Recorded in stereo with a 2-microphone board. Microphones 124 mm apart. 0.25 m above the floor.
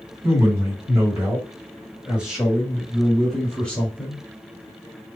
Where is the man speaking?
25° right (ahead or behind), 1.9 m; by 4.2 s 15° left (ahead or behind), 1.5 m.